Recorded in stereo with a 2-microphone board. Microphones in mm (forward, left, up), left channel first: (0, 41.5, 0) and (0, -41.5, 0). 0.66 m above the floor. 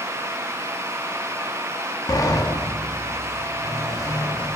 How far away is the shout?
I don't hear a shout.